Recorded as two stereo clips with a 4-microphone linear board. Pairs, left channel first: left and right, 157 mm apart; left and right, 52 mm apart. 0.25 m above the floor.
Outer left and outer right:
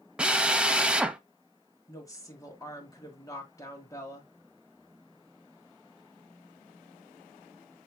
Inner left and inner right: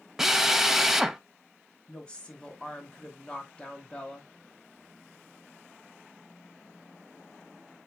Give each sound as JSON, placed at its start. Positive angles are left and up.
{"t": 0.2, "sound": "a drill", "side_deg": -5, "distance_m": 0.5}
{"t": 1.9, "sound": "a woman speaking", "side_deg": 20, "distance_m": 1.4}